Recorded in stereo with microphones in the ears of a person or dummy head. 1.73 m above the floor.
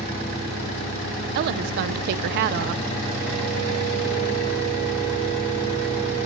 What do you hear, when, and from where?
1.4 s a woman speaking: 60° right (ahead or behind), 0.9 m